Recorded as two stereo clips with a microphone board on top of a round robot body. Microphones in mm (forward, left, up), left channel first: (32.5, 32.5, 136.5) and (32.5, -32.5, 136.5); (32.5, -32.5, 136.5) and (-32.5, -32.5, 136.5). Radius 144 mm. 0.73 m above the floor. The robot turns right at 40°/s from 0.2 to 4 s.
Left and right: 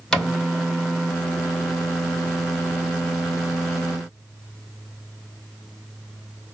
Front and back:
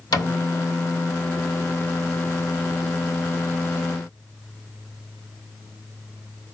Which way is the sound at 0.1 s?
10° left.